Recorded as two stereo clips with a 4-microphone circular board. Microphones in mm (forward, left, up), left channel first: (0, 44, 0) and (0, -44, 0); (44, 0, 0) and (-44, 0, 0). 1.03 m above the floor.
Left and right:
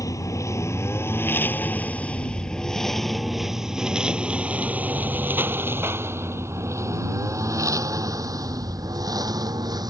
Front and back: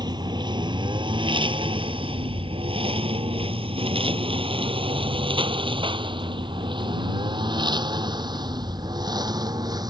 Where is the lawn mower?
140° left; by 9.9 s 135° right.